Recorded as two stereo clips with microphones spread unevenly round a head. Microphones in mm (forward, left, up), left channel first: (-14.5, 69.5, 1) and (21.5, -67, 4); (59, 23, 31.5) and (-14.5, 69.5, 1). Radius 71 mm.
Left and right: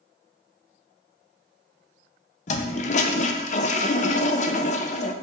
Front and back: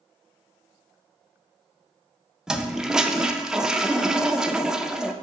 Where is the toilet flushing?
65° left, 0.5 m.